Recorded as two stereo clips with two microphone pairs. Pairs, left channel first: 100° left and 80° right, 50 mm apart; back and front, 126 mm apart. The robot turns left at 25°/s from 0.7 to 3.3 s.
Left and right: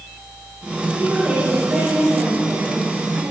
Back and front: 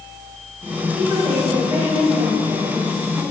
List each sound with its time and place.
1.0 s a woman speaking: 30° right, 6 m; by 3.2 s 85° right, 6 m